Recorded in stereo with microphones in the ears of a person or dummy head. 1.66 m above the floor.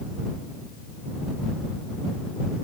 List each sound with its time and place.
Only background noise.